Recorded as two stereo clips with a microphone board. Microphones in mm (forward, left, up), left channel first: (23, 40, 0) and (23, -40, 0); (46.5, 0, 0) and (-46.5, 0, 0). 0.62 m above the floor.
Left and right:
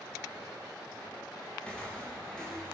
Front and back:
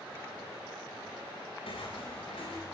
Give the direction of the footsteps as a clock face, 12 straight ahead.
12 o'clock.